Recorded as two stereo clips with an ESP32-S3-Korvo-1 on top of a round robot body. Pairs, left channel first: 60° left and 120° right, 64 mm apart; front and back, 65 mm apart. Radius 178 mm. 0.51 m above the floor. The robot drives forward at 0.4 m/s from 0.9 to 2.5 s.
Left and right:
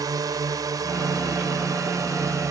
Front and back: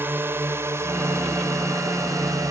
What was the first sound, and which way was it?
A drone, 125° right.